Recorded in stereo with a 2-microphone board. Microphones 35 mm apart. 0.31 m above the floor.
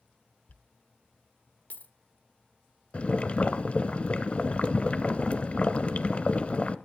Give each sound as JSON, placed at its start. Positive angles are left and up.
{"t": 0.5, "sound": "a dropped coin", "side_deg": 45, "distance_m": 0.7}
{"t": 2.9, "sound": "boiling", "side_deg": 35, "distance_m": 0.8}